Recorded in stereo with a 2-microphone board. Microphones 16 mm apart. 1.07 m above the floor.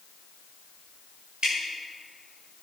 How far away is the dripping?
About 5 m.